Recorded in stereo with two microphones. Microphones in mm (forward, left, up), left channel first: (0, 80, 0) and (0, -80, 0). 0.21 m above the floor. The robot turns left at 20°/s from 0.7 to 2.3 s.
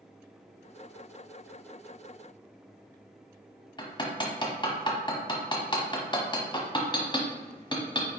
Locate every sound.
3.8 s hammering: 30° left (ahead or behind), 0.9 m